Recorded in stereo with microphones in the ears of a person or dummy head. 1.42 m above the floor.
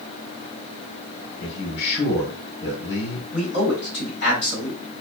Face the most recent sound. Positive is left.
turn(degrees=50)  # may be behind; listen again after turning